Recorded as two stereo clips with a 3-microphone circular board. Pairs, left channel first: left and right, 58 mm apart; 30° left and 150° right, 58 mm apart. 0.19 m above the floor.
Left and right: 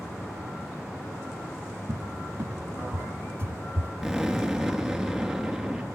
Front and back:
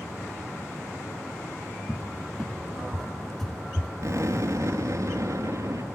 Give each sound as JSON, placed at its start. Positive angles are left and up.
{"t": 1.9, "sound": "a cupboard door", "azimuth_deg": -50, "distance_m": 0.7}
{"t": 4.0, "sound": "an explosion", "azimuth_deg": -175, "distance_m": 3.5}